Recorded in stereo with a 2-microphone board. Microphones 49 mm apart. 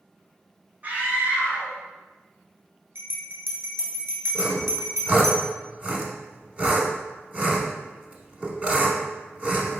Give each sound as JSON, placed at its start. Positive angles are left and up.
{"t": 0.8, "sound": "a scream", "side_deg": -30, "distance_m": 1.6}
{"t": 3.0, "sound": "a bell", "side_deg": -65, "distance_m": 0.9}
{"t": 4.3, "sound": "sawing", "side_deg": -30, "distance_m": 0.8}